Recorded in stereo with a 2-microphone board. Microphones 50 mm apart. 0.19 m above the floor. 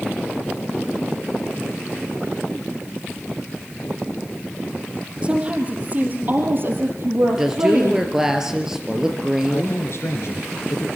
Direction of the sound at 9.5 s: 60° left (ahead or behind).